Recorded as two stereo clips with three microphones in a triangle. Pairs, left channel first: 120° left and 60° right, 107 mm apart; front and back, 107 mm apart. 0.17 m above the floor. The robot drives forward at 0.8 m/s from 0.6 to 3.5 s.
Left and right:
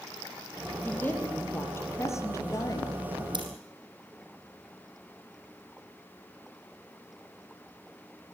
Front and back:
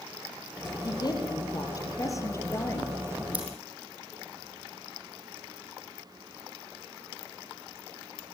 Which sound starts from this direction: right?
Scissors, at 3.3 s.